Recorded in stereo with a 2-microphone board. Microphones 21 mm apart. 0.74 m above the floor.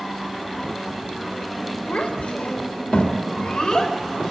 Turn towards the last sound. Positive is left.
turn(degrees=35)  # may be behind; listen again after turning